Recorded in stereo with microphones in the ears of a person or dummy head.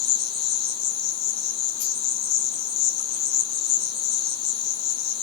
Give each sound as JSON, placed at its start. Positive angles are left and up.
{"t": 0.0, "sound": "an insect", "side_deg": 70, "distance_m": 0.8}